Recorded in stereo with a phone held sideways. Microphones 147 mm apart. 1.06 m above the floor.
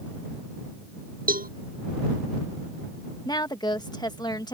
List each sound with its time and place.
1.3 s a cowbell: 75° right (ahead or behind)
3.2 s a woman speaking: 30° left (ahead or behind)